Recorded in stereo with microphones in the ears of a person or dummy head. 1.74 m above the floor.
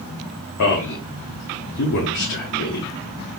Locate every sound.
0.6 s a man speaking: 55° left (ahead or behind), 0.8 m